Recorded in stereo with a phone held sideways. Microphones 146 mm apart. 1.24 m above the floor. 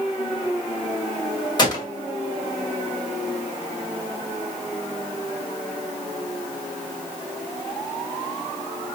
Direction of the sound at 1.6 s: 30° left (ahead or behind).